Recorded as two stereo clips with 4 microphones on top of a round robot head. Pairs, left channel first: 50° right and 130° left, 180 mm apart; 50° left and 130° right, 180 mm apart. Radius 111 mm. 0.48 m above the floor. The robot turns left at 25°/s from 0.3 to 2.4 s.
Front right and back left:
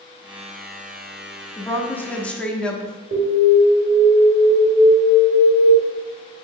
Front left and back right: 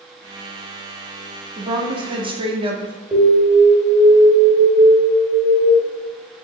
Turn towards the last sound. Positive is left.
turn(degrees=155)